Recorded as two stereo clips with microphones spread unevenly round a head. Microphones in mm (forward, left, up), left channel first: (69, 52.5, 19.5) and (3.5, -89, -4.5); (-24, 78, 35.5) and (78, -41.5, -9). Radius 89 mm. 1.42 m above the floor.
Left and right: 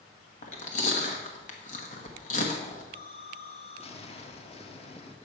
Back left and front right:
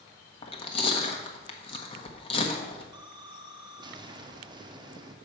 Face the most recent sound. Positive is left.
turn(degrees=15)